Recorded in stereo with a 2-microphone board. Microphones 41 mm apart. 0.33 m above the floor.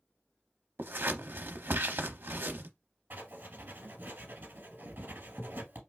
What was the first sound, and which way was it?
Scissors, 60° right (ahead or behind).